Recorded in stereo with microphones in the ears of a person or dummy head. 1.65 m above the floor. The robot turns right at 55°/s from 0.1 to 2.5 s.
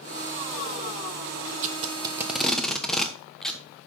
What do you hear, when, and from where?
1.6 s tape being pulled: 50° right (ahead or behind), 1.1 m; by 3.6 s centre (ahead or behind), 1.1 m